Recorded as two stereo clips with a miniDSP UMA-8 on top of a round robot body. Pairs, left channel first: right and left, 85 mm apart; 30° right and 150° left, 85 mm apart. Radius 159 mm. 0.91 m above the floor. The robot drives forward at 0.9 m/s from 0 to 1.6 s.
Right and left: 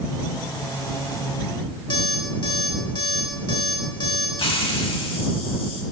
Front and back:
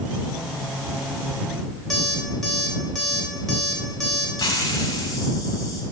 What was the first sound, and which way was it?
An alarm clock, 115° right.